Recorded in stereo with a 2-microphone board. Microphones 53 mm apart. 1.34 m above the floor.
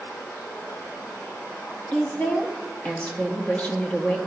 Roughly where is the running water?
Left.